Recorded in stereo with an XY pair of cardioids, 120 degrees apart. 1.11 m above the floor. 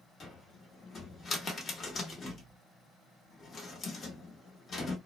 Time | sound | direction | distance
0.2 | a cupboard door | 40° left | 0.9 m